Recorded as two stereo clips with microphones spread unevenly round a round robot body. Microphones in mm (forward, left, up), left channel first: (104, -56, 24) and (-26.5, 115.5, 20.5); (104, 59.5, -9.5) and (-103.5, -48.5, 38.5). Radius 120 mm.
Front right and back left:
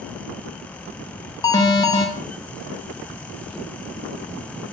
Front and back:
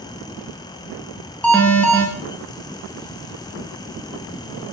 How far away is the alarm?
About 0.8 m.